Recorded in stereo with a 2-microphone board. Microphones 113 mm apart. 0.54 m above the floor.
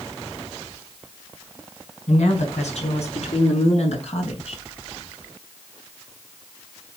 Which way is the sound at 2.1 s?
70° left (ahead or behind).